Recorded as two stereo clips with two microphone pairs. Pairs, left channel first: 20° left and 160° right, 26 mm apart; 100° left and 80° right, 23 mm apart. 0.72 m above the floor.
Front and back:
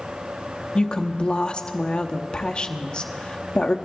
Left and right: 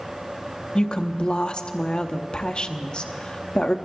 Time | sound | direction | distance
0.8 | a woman speaking | 70° left | 0.9 m